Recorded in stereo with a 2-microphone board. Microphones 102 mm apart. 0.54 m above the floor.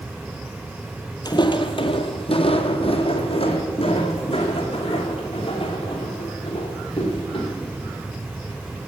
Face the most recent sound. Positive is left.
turn(degrees=55)  # may be behind; listen again after turning